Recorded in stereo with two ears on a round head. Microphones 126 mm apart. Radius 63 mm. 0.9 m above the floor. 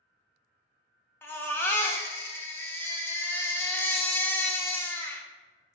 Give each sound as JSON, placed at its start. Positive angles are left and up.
{"t": 1.2, "sound": "a baby crying", "side_deg": 15, "distance_m": 0.5}